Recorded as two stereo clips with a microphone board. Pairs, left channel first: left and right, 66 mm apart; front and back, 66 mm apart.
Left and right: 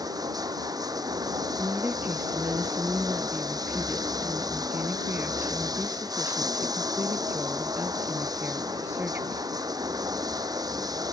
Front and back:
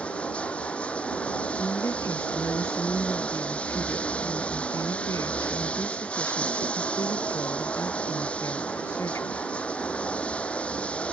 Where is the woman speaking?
35° right.